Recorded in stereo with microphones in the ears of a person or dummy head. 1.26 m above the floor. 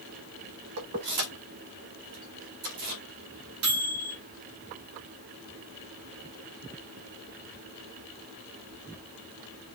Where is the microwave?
80° right, 1.9 m.